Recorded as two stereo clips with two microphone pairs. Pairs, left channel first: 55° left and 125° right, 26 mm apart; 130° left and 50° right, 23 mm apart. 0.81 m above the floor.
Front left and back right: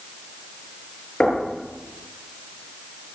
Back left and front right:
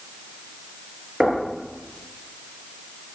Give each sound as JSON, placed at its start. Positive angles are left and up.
{"t": 1.2, "sound": "knocking", "azimuth_deg": 0, "distance_m": 9.0}